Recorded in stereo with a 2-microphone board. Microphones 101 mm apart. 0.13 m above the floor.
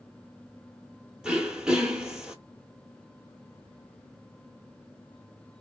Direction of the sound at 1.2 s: 5° right (ahead or behind).